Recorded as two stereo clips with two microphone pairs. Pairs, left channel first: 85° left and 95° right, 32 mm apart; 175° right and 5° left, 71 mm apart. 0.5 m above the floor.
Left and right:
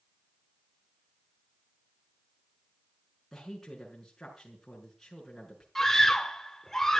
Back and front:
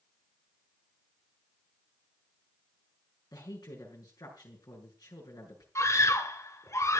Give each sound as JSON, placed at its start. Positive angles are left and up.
{"t": 3.3, "sound": "a woman speaking", "azimuth_deg": 165, "distance_m": 6.0}
{"t": 5.8, "sound": "a scream", "azimuth_deg": 160, "distance_m": 1.8}